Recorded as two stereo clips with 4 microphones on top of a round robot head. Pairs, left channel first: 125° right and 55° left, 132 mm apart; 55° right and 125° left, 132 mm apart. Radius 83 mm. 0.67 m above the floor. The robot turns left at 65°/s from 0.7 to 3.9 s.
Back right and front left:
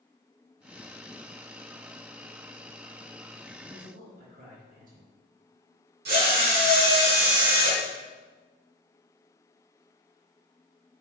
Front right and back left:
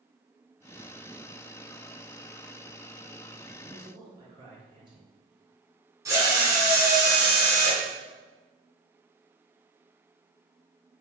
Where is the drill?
55° left, 3.5 m.